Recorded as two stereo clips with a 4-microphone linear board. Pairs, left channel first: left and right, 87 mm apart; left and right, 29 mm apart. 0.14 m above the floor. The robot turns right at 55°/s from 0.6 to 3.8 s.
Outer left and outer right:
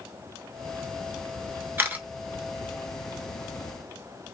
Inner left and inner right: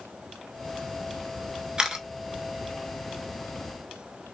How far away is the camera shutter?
About 0.7 m.